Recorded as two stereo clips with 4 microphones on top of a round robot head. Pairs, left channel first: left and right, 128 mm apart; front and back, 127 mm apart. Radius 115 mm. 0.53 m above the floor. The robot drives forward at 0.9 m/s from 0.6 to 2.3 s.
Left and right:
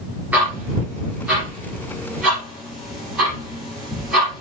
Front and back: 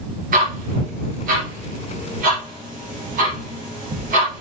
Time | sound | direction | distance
0.3 | ticking | 170° right | 2 m